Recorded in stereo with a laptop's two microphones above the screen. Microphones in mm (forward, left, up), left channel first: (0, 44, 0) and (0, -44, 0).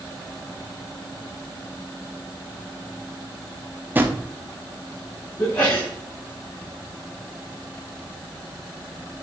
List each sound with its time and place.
4.0 s a drawer: 20° right (ahead or behind), 0.9 m
5.4 s a sneeze: 20° left (ahead or behind), 2.5 m